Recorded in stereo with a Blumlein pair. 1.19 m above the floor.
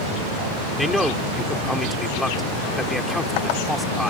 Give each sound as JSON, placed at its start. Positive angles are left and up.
{"t": 0.8, "sound": "a man speaking", "azimuth_deg": 5}